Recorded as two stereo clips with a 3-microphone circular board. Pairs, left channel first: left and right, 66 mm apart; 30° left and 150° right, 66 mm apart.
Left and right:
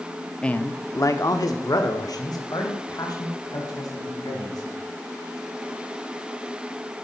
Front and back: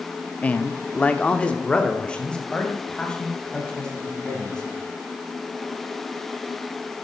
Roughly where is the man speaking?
Ahead left.